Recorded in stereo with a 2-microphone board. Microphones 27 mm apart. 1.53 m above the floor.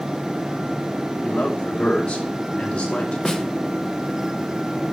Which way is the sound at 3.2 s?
20° left (ahead or behind).